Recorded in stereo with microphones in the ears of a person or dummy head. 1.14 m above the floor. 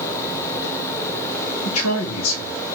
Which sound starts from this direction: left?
A man speaking, at 1.6 s.